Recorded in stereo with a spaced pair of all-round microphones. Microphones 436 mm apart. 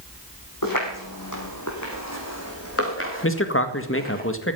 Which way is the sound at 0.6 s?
50° left (ahead or behind).